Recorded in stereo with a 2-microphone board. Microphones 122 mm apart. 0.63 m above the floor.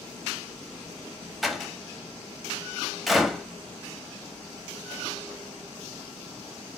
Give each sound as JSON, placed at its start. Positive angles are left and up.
{"t": 1.4, "sound": "a door slam", "side_deg": 0, "distance_m": 0.7}